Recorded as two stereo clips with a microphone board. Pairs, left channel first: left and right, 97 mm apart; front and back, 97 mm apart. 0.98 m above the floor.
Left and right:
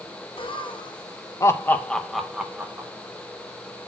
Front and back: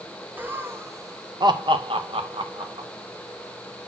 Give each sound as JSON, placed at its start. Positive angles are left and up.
{"t": 0.4, "sound": "laughter", "azimuth_deg": 110, "distance_m": 1.1}